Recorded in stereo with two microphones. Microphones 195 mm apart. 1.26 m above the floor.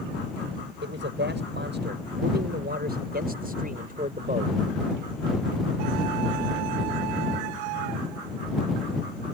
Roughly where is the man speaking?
Right.